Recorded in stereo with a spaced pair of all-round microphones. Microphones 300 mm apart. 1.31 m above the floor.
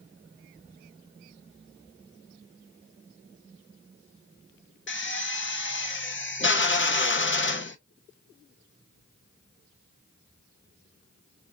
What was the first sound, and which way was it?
A drill, 40° left (ahead or behind).